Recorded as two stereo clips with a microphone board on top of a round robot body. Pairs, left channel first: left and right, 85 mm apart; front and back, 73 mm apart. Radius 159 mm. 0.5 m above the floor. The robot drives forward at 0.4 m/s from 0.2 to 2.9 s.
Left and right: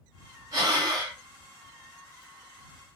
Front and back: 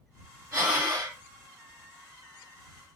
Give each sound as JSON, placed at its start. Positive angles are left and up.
{"t": 0.5, "sound": "breathing", "azimuth_deg": -135, "distance_m": 3.0}